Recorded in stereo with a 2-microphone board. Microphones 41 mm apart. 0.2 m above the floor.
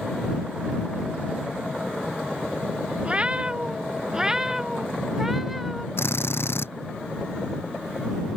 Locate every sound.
3.0 s a cat meowing: 25° right (ahead or behind); by 5.9 s 5° right (ahead or behind)
6.0 s a drill: 70° left (ahead or behind)